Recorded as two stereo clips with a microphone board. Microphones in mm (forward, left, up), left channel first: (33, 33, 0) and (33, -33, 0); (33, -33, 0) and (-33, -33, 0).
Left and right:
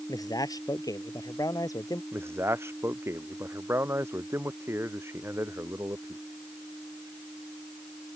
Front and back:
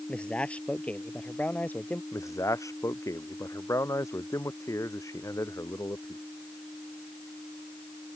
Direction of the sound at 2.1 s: 40° right.